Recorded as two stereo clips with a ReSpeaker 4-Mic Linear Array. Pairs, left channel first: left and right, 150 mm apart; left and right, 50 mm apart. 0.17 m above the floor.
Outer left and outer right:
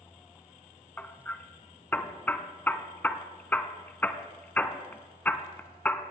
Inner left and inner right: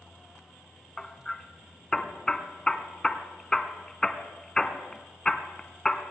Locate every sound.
1.0 s hammering: 10° left (ahead or behind), 0.8 m